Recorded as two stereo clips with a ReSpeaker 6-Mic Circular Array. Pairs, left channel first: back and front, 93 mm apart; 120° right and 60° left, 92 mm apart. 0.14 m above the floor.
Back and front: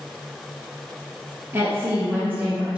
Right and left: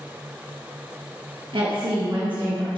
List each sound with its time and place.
1.5 s a woman speaking: 60° left, 3 m; by 2.8 s 75° left, 3 m